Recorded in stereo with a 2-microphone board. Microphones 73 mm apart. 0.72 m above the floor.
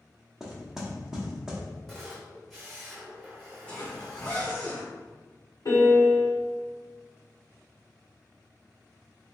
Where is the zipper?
20° left (ahead or behind), 1.3 m.